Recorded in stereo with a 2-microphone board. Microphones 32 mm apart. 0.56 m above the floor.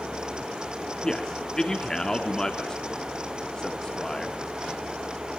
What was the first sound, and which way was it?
A man speaking, 20° left (ahead or behind).